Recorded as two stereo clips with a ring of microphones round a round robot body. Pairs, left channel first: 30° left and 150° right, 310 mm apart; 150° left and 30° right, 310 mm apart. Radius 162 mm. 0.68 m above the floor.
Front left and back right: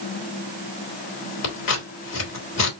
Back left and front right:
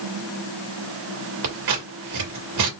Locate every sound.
1.4 s scissors: 5° right, 2.5 m